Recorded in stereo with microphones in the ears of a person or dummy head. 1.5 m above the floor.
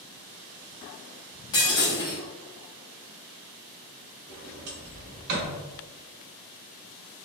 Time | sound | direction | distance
1.5 | breaking glass | 20° left (ahead or behind) | 1.1 m
4.3 | a sliding door | 60° right (ahead or behind) | 1.7 m